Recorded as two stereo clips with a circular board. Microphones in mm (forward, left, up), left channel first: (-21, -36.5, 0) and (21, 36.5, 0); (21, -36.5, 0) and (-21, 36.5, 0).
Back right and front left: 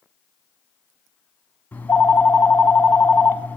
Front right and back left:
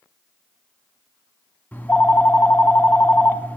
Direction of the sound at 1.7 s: 90° right.